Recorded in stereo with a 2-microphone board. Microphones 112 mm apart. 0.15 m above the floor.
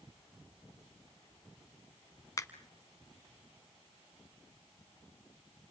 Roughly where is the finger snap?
Left.